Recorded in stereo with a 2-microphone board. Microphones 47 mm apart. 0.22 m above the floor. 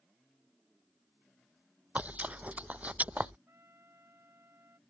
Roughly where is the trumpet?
Right.